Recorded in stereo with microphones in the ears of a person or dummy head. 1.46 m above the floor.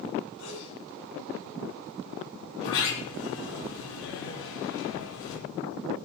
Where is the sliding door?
85° left, 8 m.